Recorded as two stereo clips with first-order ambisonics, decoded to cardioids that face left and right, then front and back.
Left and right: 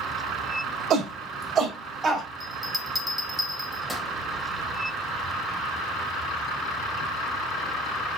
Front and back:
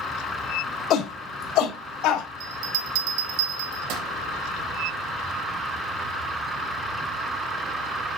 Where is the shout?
40° right, 2.0 m; by 2.3 s 20° right, 3.5 m.